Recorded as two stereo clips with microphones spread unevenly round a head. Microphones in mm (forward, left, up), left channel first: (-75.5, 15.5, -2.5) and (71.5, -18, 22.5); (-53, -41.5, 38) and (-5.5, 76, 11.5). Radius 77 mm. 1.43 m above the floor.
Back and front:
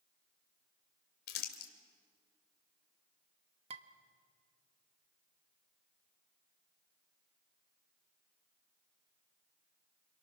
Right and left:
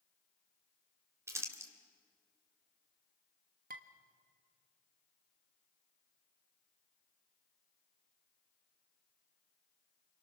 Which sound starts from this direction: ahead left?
Dishes clattering, at 3.7 s.